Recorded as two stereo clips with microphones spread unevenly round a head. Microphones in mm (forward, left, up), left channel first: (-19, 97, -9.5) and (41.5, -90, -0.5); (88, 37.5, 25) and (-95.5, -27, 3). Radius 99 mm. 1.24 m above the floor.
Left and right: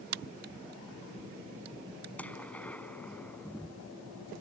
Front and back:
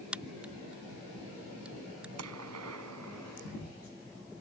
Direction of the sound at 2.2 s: 170° right.